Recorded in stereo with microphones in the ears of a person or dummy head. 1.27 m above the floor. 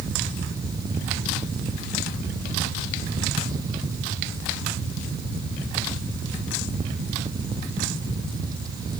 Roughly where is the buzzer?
No buzzer in this recording.